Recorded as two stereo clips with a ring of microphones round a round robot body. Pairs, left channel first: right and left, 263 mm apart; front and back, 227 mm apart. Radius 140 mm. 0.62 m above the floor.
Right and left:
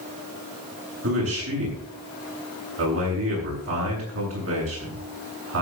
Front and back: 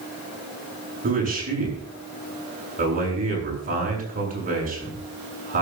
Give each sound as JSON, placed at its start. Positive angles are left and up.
{"t": 1.0, "sound": "a man speaking", "azimuth_deg": 130, "distance_m": 8.5}